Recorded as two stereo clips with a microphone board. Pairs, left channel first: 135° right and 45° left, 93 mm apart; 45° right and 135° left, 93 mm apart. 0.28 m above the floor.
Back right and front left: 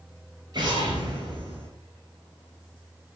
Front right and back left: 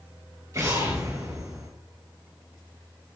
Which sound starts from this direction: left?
An explosion, at 0.5 s.